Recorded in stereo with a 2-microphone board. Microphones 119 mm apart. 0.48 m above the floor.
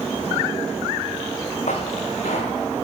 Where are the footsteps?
80° left, 3 m.